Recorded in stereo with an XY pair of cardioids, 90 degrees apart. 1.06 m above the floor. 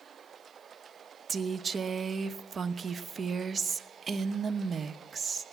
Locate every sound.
1.3 s a woman speaking: 40° right, 1.0 m